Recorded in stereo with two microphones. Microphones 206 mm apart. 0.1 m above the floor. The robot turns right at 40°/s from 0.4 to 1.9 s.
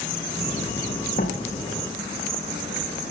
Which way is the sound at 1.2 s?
45° left (ahead or behind).